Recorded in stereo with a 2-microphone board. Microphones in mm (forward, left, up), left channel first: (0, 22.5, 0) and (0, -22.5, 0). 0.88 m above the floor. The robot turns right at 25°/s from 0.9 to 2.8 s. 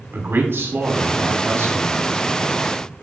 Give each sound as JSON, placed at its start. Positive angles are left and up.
{"t": 0.1, "sound": "a man speaking", "azimuth_deg": -120, "distance_m": 2.5}